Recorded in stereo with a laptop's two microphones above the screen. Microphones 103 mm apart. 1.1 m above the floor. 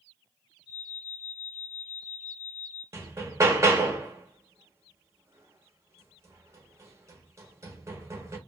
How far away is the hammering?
About 0.7 m.